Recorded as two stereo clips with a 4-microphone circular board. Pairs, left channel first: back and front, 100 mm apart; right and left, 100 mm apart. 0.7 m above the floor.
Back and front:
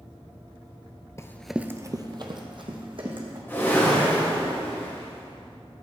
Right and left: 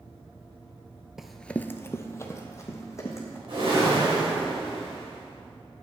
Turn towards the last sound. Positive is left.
turn(degrees=110)